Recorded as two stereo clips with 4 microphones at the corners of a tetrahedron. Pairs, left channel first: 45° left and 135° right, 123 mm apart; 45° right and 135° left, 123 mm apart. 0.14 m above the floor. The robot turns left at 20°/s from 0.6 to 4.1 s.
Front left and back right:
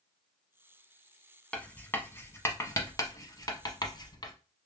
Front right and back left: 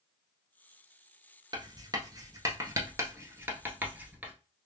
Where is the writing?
120° left, 0.8 m; by 4.3 s 65° left, 0.8 m.